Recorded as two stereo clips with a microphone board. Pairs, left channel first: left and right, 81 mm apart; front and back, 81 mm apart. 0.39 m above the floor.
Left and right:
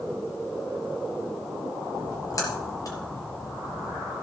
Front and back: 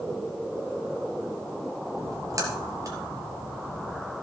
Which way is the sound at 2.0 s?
135° left.